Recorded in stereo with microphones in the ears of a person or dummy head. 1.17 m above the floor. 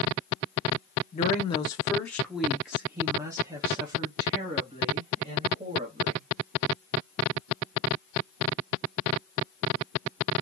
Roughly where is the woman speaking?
Left.